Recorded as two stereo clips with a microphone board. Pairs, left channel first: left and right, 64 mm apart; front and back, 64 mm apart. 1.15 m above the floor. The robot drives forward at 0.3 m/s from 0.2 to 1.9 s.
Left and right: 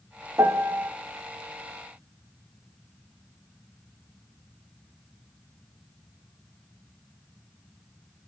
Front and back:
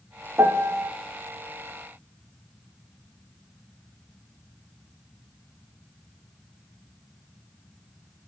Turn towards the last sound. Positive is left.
turn(degrees=-155)